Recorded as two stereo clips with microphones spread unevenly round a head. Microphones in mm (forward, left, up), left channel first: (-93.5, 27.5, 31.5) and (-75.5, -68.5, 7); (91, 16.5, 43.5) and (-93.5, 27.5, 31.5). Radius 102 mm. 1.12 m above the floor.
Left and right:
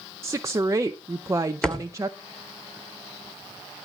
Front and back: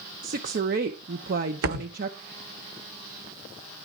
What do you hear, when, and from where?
0.2 s a woman speaking: 140° right, 0.7 m
1.6 s a thud: straight behind, 1.7 m